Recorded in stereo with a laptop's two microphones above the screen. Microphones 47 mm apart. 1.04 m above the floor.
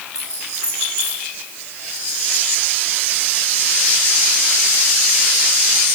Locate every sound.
0.1 s keys jangling: 75° left (ahead or behind), 8 m